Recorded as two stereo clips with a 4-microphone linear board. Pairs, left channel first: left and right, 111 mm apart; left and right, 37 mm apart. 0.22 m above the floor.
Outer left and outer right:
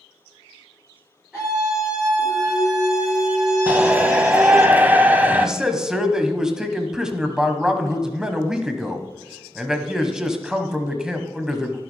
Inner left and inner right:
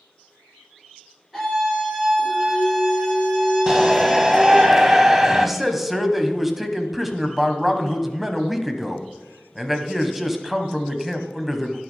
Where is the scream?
10° right (ahead or behind), 4 m.